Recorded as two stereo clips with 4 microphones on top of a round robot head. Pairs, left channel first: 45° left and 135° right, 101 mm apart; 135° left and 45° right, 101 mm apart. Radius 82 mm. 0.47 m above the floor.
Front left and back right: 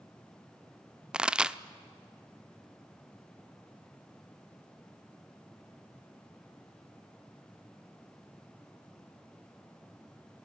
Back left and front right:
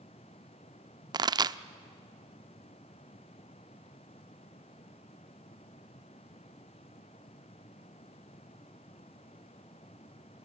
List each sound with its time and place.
1.1 s a pop: 60° right, 0.6 m